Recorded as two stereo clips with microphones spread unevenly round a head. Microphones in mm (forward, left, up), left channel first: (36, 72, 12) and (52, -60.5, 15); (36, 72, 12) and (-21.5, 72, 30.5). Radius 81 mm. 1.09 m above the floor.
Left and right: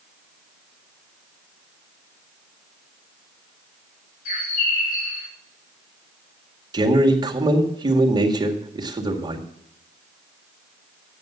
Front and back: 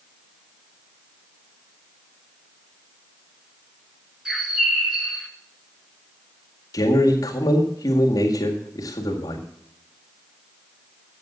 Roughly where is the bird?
Left.